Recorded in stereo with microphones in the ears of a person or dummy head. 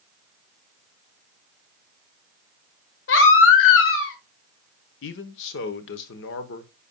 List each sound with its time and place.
3.1 s a baby crying: 65° left (ahead or behind), 1.3 m
5.0 s a man speaking: 65° left (ahead or behind), 0.9 m